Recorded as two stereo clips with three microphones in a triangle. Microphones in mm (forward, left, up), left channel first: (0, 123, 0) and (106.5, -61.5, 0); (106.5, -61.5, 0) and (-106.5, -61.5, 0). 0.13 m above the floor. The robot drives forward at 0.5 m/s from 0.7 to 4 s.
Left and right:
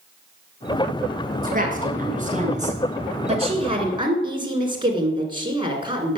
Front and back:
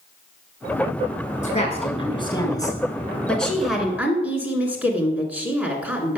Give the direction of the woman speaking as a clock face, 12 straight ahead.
1 o'clock.